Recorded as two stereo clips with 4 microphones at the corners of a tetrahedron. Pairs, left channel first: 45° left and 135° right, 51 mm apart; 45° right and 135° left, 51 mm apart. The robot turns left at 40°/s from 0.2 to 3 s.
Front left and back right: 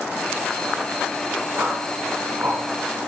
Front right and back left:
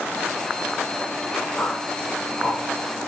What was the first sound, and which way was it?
A whoosh, 105° right.